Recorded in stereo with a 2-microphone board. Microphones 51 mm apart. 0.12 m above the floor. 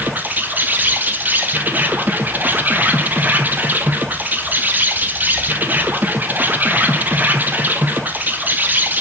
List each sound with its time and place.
0.0 s an insect: 40° right (ahead or behind), 1.0 m